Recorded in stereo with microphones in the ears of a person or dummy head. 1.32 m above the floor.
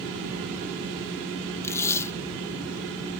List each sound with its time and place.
1.6 s tape being pulled: 15° left (ahead or behind)